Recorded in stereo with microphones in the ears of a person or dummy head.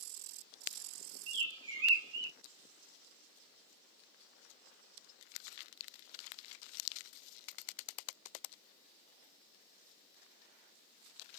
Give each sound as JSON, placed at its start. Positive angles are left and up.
{"t": 1.3, "sound": "a bird", "side_deg": -65, "distance_m": 1.0}